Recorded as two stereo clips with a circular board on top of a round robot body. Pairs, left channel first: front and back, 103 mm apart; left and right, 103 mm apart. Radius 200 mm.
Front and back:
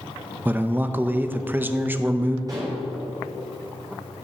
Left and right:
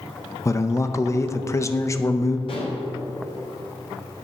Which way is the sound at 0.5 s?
125° left.